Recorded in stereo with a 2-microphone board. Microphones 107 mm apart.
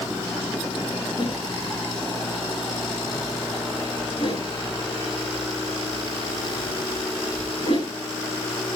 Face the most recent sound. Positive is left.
turn(degrees=65)  # may be behind; listen again after turning